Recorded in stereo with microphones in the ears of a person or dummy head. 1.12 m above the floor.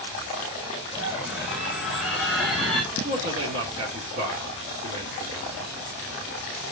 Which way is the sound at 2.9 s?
40° right (ahead or behind).